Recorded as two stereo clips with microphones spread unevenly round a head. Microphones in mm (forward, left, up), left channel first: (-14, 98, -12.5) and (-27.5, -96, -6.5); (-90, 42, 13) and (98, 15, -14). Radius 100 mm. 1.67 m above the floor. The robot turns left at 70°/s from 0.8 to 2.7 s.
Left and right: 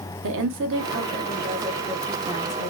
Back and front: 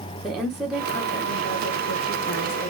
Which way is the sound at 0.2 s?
100° right.